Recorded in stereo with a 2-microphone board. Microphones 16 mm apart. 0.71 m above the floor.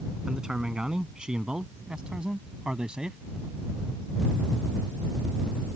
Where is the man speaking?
60° right (ahead or behind); by 3.2 s 80° right.